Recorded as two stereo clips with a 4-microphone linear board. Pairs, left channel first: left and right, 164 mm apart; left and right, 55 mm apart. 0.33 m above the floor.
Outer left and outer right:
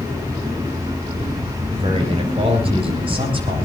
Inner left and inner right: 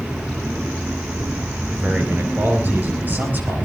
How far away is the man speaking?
About 7 m.